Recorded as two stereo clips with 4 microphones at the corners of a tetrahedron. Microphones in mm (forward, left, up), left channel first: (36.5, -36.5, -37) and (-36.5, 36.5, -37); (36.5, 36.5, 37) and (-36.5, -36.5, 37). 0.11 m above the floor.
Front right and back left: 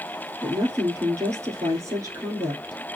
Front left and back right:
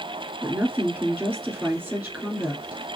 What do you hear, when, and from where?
0.4 s a woman speaking: 160° left, 1.7 m